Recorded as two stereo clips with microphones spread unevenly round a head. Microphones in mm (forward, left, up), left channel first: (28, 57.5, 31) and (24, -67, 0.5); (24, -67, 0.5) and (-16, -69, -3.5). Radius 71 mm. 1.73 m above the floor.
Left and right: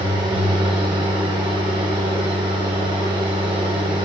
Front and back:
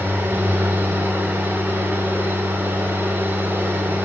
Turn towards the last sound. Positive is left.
turn(degrees=-155)